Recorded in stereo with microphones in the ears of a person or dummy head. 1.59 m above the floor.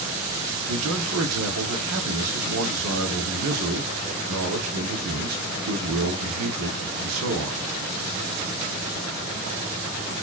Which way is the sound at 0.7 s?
85° right.